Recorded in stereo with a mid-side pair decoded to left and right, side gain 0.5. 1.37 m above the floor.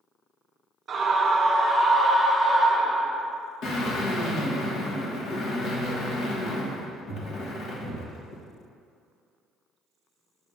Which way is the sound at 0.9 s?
45° right.